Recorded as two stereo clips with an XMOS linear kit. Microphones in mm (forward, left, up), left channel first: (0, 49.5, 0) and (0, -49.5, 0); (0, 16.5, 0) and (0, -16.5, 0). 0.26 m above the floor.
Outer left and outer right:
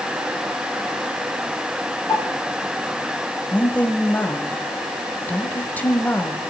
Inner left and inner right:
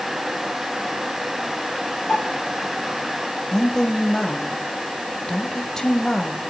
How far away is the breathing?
I don't hear breathing.